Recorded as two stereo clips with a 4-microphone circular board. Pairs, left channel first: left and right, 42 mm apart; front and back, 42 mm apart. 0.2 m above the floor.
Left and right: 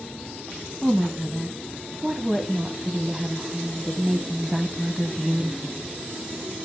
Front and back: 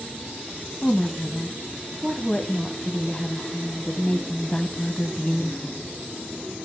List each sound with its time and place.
0.8 s a woman speaking: 25° right, 1.1 m